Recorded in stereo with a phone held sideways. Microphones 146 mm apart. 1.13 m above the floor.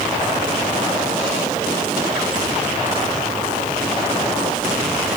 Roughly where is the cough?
No cough in this recording.